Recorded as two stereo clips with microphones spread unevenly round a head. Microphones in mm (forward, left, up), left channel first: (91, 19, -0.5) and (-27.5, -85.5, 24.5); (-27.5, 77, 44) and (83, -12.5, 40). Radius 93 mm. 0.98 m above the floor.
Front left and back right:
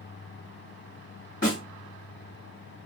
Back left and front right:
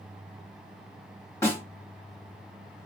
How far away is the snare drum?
About 1.6 m.